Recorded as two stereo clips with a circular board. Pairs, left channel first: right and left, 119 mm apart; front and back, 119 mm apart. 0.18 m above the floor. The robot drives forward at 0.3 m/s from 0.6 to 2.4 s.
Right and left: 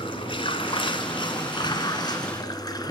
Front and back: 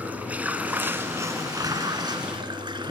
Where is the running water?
105° right, 0.9 m; by 2.9 s 140° right, 1.1 m.